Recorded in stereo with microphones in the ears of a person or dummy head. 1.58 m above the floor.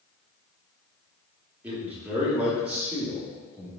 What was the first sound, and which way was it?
A man speaking, 10° right (ahead or behind).